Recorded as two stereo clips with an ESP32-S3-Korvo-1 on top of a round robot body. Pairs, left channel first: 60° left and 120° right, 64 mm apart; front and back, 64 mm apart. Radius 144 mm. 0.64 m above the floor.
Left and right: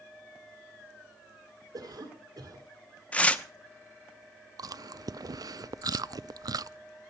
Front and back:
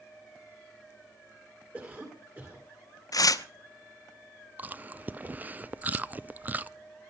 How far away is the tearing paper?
About 1.1 m.